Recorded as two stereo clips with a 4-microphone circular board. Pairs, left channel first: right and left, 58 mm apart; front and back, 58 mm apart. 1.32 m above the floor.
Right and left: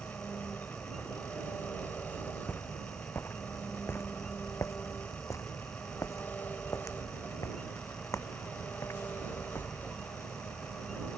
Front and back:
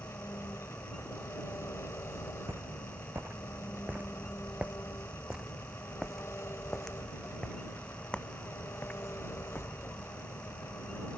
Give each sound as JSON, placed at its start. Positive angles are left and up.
{"t": 0.0, "sound": "an engine running", "azimuth_deg": -35}
{"t": 2.5, "sound": "footsteps", "azimuth_deg": -140}